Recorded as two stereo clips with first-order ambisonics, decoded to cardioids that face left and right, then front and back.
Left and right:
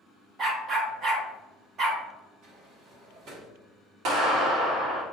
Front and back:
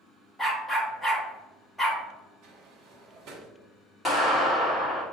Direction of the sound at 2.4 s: 135° right.